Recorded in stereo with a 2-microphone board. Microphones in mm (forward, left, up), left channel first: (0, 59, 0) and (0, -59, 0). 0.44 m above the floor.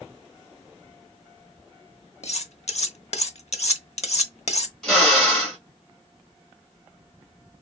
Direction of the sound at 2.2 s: 65° left (ahead or behind).